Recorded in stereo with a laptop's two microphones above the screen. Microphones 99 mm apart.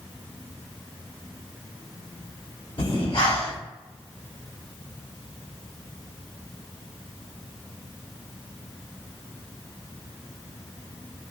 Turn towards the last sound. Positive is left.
turn(degrees=65)  # may be behind; listen again after turning